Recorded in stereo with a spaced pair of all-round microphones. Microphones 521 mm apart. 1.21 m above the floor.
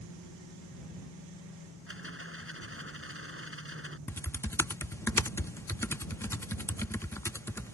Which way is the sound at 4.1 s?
5° left (ahead or behind).